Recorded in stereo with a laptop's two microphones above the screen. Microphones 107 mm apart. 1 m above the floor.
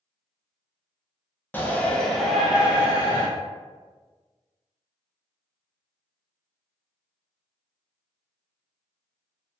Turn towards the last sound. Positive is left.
turn(degrees=-20)  # may be behind; listen again after turning